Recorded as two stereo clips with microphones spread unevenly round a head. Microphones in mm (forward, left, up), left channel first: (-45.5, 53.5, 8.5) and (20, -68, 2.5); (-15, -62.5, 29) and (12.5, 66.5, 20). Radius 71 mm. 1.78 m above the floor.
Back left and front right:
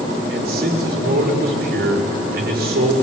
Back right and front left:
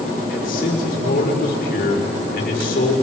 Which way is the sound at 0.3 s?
75° right.